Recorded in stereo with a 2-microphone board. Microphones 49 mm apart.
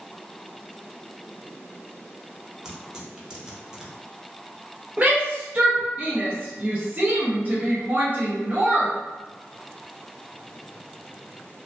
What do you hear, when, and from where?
2.6 s tearing paper: 15° right (ahead or behind), 0.7 m
5.0 s a shout: 30° right (ahead or behind), 0.6 m